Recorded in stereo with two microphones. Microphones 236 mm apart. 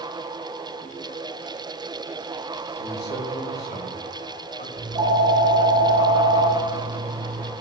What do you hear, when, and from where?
2.8 s a man speaking: 45° left (ahead or behind), 2.5 m
4.8 s a phone ringing: 20° right (ahead or behind), 5 m